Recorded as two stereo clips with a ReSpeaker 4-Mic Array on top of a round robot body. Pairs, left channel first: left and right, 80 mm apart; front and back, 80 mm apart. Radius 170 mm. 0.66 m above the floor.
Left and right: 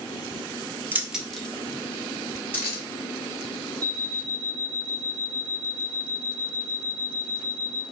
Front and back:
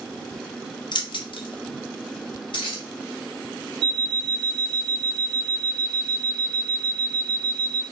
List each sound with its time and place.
0.9 s keys jangling: 25° right, 0.9 m; by 2.8 s 25° left, 3 m
3.8 s an alarm clock: 170° left, 0.7 m